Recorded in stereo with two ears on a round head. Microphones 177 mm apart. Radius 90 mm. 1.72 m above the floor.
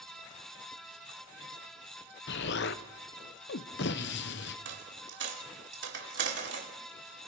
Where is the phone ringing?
No phone ringing in this recording.